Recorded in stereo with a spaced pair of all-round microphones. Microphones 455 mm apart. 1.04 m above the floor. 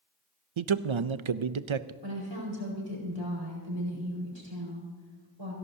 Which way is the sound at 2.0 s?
65° right (ahead or behind).